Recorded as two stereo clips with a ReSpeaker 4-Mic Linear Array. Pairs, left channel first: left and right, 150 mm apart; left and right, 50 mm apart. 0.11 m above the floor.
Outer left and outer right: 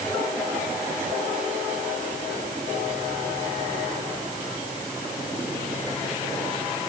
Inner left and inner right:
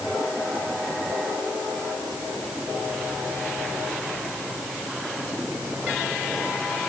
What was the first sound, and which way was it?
Only background noise.